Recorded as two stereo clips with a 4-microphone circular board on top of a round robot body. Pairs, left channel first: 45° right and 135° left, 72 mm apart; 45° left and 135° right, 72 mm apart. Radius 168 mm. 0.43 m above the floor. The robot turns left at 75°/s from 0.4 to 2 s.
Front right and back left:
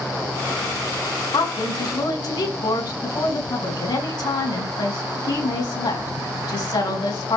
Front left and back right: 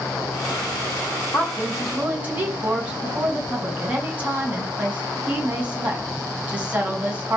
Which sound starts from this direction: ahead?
A woman speaking, at 1.3 s.